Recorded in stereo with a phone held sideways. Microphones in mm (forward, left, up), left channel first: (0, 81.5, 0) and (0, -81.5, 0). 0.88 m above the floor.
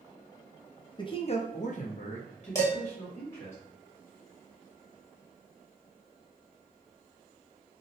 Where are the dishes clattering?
20° left (ahead or behind), 1.2 m.